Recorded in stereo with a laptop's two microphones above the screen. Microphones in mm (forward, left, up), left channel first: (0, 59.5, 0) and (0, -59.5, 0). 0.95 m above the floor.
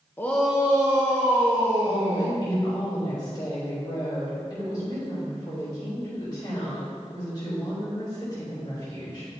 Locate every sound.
0.2 s a shout: 20° left (ahead or behind), 0.6 m; by 2.4 s 50° right (ahead or behind), 2 m
1.9 s a woman speaking: 35° left (ahead or behind), 2 m